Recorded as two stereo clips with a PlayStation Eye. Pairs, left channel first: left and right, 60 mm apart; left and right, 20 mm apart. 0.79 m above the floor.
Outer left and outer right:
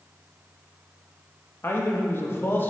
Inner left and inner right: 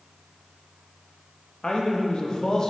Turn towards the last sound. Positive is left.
turn(degrees=35)  # may be behind; listen again after turning